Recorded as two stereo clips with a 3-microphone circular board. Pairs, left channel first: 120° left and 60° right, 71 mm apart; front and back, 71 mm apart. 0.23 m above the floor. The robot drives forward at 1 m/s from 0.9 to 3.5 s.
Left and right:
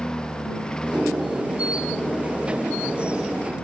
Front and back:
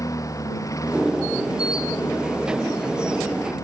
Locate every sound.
0.0 s a lawn mower: 40° left; by 3.6 s 45° left